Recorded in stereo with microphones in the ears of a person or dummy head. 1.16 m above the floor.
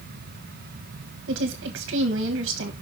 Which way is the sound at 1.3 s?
65° right (ahead or behind).